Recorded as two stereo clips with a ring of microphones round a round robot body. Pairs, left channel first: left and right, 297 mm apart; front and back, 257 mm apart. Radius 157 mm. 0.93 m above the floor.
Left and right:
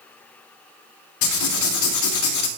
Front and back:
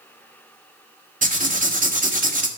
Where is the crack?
I don't hear a crack.